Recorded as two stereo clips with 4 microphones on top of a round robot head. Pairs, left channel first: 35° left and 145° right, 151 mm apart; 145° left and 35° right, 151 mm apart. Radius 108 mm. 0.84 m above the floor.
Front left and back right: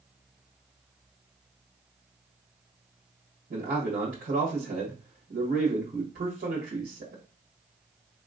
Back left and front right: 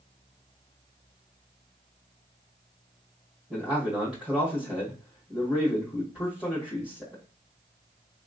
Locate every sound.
3.5 s a man speaking: 115° right, 1.4 m